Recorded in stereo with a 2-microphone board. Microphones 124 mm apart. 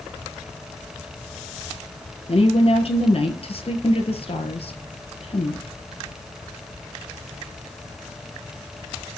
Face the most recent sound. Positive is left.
turn(degrees=55)  # may be behind; listen again after turning